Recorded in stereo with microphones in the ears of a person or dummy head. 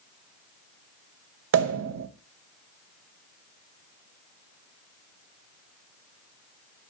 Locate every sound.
1.5 s a pop: 80° right, 0.5 m